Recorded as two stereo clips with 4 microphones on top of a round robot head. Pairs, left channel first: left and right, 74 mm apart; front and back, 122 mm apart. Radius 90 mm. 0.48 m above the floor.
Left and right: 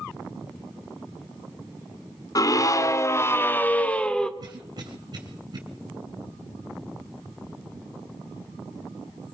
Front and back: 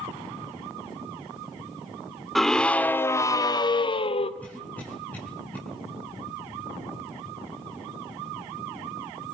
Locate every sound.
2.4 s a scream: 90° left, 1.9 m; by 4.3 s 10° left, 1.9 m
4.4 s a cough: 80° right, 3 m